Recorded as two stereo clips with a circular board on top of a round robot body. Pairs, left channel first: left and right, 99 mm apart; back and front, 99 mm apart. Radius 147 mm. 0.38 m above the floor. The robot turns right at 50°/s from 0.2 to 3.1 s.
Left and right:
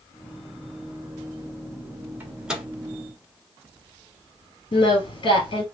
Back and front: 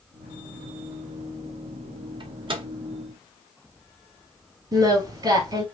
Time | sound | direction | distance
2.2 | a microwave | 25° right | 1.5 m
4.7 | singing | 45° left | 2.0 m